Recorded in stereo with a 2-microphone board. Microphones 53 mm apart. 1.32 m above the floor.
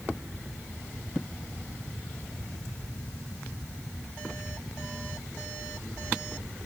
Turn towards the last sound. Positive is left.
No sound to turn to.